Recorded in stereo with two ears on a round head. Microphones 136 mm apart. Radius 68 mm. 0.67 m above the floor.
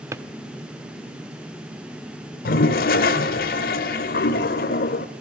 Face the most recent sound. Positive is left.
turn(degrees=65)  # may be behind; listen again after turning